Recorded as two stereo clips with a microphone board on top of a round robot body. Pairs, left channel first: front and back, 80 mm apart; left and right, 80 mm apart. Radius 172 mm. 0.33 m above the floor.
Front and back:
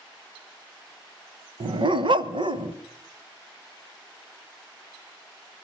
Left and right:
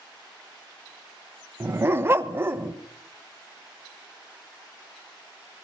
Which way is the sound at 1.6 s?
155° right.